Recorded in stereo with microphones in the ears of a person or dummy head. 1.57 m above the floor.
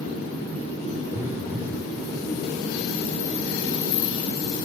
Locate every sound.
1.1 s a phone buzzing: 15° right (ahead or behind), 0.6 m